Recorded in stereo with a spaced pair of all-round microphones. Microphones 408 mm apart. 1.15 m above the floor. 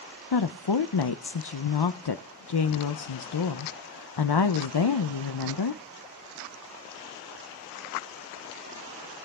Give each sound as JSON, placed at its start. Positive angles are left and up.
{"t": 0.3, "sound": "a woman speaking", "side_deg": 70, "distance_m": 0.6}